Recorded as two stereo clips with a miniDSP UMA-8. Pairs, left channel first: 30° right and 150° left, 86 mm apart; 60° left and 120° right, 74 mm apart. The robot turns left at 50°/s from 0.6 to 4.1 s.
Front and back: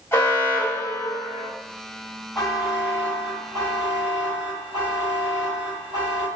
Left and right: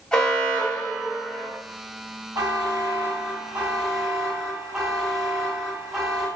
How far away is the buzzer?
About 1.8 m.